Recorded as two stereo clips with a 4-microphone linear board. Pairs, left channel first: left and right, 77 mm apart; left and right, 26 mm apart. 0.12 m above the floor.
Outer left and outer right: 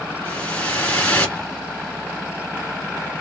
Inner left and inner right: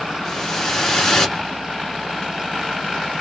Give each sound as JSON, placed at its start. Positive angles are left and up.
{"t": 0.2, "sound": "a whoosh", "side_deg": 20, "distance_m": 1.6}